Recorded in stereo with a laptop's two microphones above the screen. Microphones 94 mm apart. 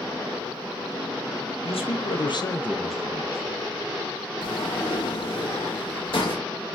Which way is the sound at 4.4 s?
65° left (ahead or behind).